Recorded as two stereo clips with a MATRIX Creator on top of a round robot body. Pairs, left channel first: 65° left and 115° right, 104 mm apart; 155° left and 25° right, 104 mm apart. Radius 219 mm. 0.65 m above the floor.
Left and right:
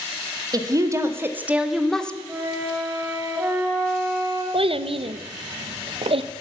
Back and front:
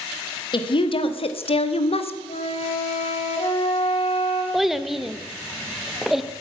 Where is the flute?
175° left, 1.7 m.